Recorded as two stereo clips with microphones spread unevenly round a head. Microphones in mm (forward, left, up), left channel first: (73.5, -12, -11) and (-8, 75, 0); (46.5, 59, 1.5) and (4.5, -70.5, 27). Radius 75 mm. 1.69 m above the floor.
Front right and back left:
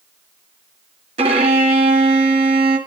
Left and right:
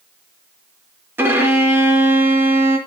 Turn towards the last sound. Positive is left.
turn(degrees=180)